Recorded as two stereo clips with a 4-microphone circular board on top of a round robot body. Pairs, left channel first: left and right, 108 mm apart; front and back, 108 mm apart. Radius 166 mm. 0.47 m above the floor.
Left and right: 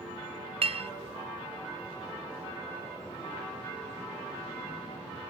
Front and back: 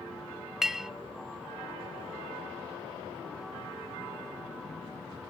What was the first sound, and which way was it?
A clink, 90° right.